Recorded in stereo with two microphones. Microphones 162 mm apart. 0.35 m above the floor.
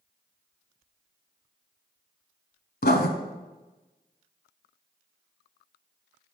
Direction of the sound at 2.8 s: 80° left.